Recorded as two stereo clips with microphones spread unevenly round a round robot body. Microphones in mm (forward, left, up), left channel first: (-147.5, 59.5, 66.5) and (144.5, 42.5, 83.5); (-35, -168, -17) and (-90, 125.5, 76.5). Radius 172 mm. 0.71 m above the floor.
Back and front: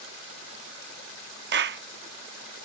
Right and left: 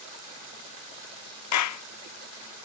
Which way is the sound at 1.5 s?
60° right.